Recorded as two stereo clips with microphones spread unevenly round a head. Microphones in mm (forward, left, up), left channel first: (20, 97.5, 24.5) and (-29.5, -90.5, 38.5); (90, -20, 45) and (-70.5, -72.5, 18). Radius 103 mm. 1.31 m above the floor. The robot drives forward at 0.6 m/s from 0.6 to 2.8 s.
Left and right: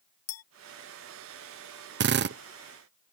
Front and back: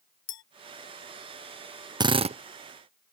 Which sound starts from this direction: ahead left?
A clink, at 0.3 s.